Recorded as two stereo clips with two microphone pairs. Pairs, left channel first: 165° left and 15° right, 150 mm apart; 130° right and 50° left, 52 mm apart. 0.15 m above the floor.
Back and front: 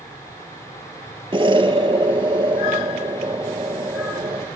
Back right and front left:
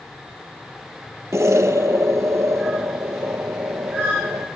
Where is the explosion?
35° left, 0.5 m.